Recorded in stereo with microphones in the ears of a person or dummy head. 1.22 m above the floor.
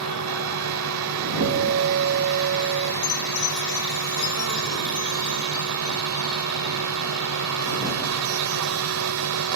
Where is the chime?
80° left.